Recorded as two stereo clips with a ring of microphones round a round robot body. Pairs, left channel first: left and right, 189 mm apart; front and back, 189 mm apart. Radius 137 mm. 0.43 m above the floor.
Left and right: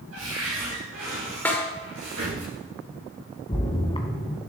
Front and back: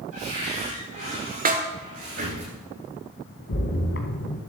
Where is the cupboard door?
135° right, 6.5 m.